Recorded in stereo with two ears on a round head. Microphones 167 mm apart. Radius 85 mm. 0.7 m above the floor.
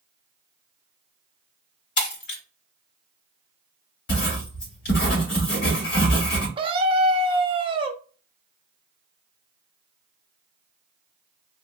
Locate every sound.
2.0 s breaking glass: 60° left (ahead or behind), 1.5 m
4.1 s writing: 60° left (ahead or behind), 2.5 m
6.6 s a scream: 25° right (ahead or behind), 0.6 m